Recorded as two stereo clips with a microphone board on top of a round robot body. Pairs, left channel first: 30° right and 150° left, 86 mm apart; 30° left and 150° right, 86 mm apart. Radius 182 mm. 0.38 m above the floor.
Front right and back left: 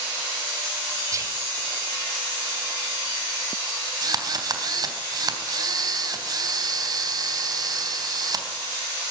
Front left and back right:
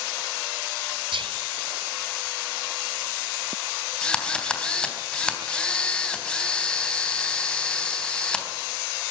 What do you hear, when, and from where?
1.1 s whispering: 160° right, 3.5 m
4.0 s a drill: 110° left, 3.5 m